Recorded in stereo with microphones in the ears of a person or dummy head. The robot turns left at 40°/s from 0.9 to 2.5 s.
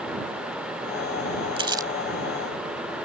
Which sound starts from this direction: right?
Crumpling, at 1.6 s.